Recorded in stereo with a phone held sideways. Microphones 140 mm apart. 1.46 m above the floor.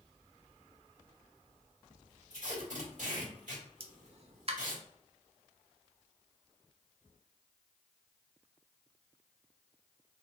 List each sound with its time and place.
2.3 s tape being pulled: 65° right (ahead or behind), 2 m
3.8 s a pop: 45° right (ahead or behind), 0.6 m